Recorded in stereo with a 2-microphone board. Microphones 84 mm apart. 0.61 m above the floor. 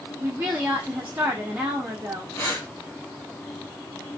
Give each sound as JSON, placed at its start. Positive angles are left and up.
{"t": 0.2, "sound": "a woman speaking", "side_deg": -20, "distance_m": 0.7}
{"t": 2.4, "sound": "breathing", "side_deg": 30, "distance_m": 1.4}